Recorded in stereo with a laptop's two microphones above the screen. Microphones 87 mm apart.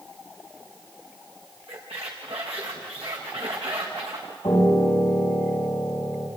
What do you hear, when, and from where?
1.7 s a squeak: 80° right, 5.5 m
4.4 s a piano: 45° left (ahead or behind), 6 m